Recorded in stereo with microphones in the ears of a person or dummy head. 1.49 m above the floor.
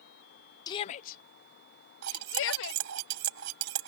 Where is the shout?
20° left (ahead or behind); by 2.8 s 75° left (ahead or behind).